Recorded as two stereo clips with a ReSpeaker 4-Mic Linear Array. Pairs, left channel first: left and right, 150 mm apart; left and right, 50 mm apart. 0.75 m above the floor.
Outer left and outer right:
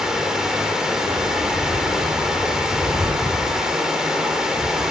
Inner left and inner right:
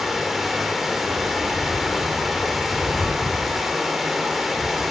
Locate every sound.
0.0 s running water: 5° right (ahead or behind), 0.9 m